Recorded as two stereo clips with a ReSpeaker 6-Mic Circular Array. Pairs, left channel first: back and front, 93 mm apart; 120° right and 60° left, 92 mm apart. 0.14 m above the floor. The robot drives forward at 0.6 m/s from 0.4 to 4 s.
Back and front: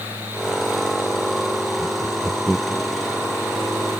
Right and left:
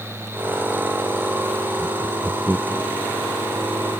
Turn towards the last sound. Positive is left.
turn(degrees=155)